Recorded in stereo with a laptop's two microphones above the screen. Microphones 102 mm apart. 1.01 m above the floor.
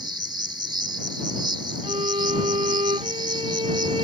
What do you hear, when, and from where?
0.0 s an insect: 45° right (ahead or behind)
1.8 s a violin: 80° right